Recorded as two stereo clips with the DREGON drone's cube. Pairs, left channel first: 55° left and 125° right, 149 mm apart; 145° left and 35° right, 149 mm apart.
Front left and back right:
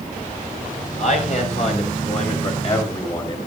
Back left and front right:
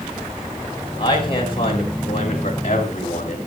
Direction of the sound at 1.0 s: 90° left.